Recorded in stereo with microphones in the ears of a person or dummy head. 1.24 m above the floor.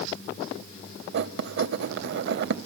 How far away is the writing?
About 0.8 m.